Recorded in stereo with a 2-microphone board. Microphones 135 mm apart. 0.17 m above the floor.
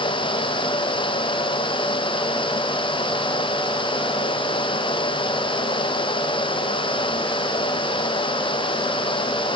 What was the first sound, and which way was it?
Only background noise.